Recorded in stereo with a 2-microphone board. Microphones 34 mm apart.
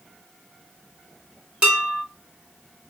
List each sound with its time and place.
1.6 s dishes clattering: 30° right (ahead or behind), 2.5 m